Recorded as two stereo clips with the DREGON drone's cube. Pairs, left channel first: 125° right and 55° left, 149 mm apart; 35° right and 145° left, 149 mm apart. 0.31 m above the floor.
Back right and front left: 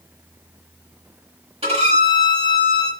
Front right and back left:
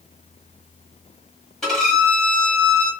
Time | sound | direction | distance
1.6 | a violin | 50° left | 1.4 m